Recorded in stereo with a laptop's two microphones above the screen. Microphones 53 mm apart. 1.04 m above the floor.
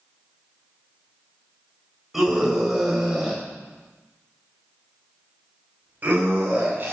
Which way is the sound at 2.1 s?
5° right (ahead or behind).